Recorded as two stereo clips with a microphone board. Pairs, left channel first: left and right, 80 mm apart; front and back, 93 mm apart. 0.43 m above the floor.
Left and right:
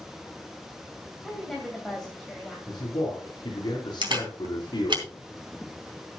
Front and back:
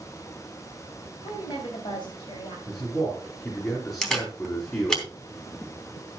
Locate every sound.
1.2 s a woman speaking: 5° left, 2.5 m
2.7 s a man speaking: 55° left, 4 m
4.0 s a camera shutter: 85° right, 3 m